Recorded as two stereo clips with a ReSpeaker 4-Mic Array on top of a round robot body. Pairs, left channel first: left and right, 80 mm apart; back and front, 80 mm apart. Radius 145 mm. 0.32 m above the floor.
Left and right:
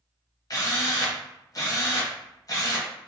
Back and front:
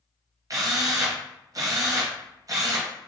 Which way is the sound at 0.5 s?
45° left.